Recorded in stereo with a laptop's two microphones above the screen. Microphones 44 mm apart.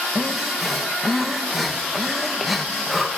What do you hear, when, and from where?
0.1 s breathing: centre (ahead or behind), 1.2 m